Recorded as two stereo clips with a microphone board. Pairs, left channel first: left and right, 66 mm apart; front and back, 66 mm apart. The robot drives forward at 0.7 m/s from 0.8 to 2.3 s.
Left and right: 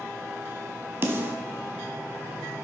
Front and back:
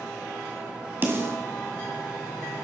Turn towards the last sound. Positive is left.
turn(degrees=-150)